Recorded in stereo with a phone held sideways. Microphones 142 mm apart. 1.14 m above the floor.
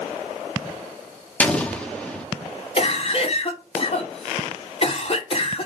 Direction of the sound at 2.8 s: 45° left (ahead or behind).